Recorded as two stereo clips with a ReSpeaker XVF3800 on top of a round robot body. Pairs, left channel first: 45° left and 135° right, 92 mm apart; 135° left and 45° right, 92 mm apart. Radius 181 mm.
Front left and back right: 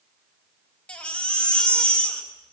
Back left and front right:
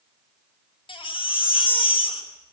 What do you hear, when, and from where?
0.9 s a baby crying: 125° left, 3.5 m